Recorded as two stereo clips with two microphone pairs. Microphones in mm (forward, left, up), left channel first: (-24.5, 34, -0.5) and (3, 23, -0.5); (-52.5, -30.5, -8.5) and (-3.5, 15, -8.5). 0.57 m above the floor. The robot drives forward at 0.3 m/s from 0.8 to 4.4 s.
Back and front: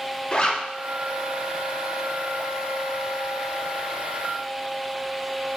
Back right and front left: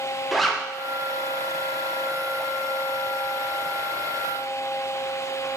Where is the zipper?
140° left, 0.5 m.